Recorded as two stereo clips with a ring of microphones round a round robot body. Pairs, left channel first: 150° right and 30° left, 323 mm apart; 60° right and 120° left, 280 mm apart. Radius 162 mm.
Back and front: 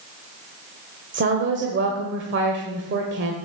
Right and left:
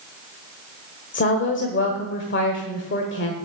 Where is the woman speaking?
20° right, 1.4 m.